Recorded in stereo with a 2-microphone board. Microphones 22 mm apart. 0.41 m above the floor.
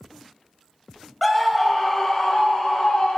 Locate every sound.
1.2 s a scream: centre (ahead or behind), 2.0 m; by 3.2 s 50° left (ahead or behind), 3.5 m